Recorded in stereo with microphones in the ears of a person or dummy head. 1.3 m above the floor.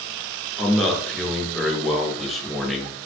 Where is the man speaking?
Centre (ahead or behind), 0.7 m.